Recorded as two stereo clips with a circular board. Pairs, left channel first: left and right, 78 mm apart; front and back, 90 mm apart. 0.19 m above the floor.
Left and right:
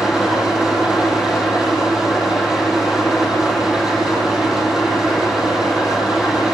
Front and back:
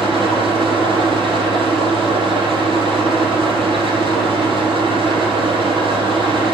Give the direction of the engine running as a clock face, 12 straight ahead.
6 o'clock.